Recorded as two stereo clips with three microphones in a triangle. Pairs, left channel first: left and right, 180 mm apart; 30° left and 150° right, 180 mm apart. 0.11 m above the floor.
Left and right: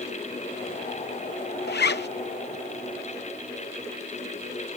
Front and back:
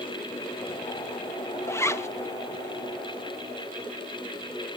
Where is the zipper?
105° left, 0.5 m.